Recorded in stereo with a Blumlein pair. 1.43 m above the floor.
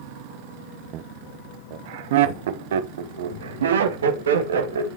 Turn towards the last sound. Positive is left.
turn(degrees=-65)